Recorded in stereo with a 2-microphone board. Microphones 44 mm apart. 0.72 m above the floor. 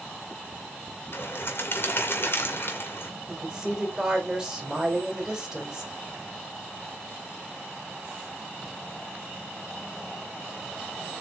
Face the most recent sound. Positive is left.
turn(degrees=-15)  # may be behind; listen again after turning